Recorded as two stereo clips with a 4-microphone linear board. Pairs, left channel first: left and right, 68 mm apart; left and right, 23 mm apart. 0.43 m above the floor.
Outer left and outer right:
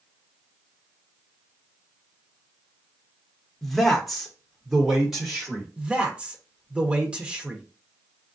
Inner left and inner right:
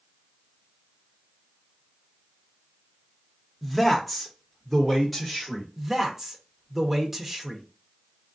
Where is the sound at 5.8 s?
15° right (ahead or behind), 0.8 m.